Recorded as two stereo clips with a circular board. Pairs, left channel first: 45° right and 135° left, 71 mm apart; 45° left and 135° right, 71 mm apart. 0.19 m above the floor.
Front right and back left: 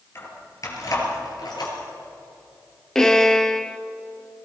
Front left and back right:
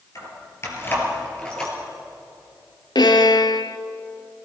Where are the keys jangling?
5° left, 3 m; by 1.7 s 35° right, 3 m.